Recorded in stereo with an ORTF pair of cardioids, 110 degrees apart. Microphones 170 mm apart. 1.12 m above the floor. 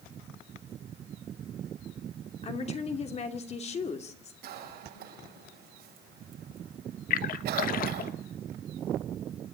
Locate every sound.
2.4 s a woman speaking: 40° left, 2.5 m
4.4 s a cough: 65° right, 7.5 m
7.1 s a splash: 60° left, 1.3 m